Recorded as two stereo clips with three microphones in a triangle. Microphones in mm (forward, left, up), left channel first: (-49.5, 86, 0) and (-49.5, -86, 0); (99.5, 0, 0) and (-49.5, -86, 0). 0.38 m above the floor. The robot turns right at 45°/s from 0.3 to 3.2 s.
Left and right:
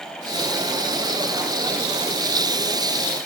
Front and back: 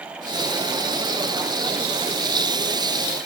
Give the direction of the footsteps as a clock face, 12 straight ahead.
No footsteps in this recording.